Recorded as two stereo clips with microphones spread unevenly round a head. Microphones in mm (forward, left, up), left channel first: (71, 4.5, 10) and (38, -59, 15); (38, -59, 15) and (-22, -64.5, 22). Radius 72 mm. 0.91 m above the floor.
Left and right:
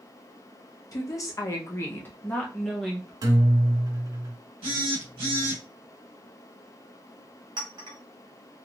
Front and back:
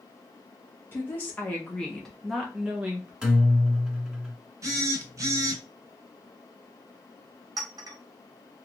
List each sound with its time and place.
0.9 s a woman speaking: 50° left, 1.4 m; by 3.1 s 160° left, 0.9 m
3.2 s a guitar: 105° right, 1.2 m
4.6 s a phone buzzing: 150° right, 1.1 m
7.6 s a clink: 165° right, 1.1 m